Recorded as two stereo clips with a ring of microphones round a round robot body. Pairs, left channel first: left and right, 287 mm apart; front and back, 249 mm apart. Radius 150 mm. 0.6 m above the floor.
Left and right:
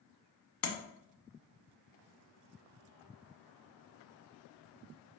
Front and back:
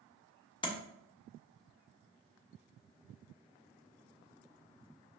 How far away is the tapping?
About 1.3 m.